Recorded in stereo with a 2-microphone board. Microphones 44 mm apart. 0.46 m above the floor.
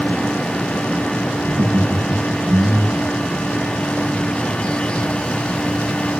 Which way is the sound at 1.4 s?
55° right (ahead or behind).